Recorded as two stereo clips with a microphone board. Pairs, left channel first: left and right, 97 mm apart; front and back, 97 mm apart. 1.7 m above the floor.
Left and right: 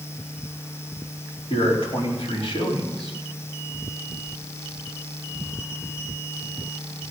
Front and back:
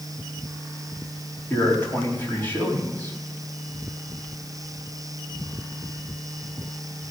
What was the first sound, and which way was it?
A man speaking, 70° left.